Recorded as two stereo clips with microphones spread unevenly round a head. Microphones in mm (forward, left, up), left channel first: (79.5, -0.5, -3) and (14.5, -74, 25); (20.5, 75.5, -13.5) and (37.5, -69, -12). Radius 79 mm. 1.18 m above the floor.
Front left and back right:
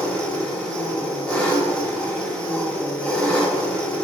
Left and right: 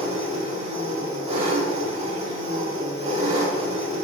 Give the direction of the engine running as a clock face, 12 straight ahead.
1 o'clock.